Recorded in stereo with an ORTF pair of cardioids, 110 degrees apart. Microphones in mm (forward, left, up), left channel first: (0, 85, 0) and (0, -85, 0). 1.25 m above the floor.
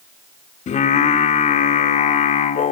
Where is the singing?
50° left, 3 m.